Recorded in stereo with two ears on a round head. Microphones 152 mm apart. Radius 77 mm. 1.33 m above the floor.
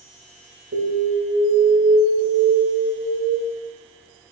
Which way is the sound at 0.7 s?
85° right.